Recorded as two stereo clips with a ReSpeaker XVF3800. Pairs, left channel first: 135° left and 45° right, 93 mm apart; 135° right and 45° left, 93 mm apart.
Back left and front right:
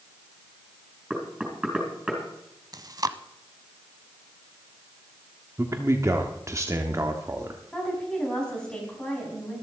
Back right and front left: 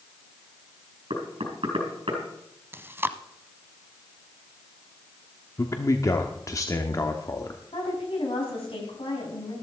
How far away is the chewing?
About 0.6 m.